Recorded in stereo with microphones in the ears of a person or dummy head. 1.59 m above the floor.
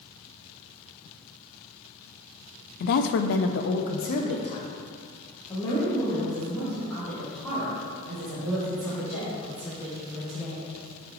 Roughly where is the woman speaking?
Left.